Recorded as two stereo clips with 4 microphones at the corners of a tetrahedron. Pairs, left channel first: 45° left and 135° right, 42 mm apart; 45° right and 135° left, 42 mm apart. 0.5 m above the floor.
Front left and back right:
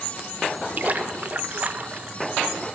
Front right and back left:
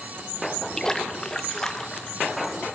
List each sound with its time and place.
0.8 s a splash: 115° right, 0.5 m